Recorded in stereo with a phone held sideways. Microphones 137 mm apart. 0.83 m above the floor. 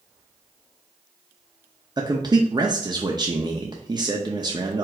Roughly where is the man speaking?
Right.